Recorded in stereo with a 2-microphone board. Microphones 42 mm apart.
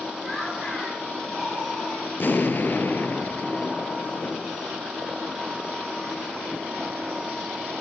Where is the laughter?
5° left (ahead or behind), 7 m.